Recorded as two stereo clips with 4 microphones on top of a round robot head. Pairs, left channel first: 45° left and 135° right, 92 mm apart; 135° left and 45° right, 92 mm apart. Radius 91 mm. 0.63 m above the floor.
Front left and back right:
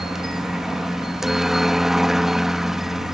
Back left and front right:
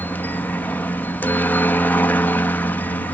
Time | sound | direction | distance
0.0 | a helicopter | 145° left | ?